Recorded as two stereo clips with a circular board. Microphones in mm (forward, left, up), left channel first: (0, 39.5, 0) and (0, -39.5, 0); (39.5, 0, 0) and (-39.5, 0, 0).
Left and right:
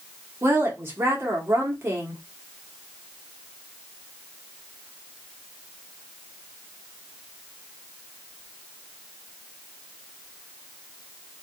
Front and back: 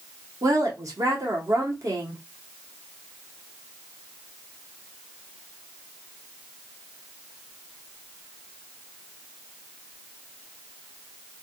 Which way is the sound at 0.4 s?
145° right.